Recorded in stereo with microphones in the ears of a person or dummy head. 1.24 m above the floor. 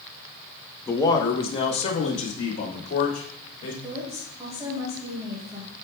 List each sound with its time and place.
0.9 s a man speaking: 10° left (ahead or behind), 0.8 m; by 3.7 s 40° left (ahead or behind), 2.5 m
3.8 s a woman speaking: 15° right (ahead or behind), 1.9 m